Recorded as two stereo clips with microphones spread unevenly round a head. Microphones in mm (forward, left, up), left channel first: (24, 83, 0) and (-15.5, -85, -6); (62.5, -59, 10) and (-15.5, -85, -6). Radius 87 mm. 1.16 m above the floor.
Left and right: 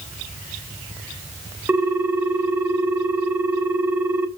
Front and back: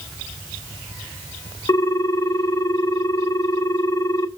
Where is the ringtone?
20° right, 0.7 m.